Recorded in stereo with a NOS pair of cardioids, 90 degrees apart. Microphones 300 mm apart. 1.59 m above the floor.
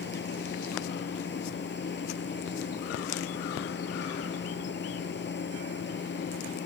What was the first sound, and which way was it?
A machine running, 35° left.